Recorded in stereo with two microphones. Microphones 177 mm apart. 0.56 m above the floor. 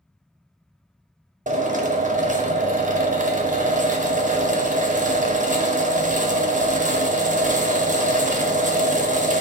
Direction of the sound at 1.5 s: 45° right (ahead or behind).